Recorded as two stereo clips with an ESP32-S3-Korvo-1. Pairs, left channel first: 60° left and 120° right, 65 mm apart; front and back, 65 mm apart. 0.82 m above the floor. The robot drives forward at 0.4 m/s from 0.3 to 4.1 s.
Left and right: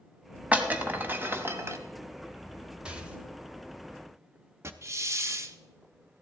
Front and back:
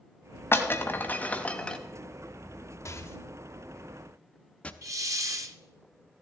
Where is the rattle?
45° right, 1.1 m; by 4.7 s 70° right, 0.8 m.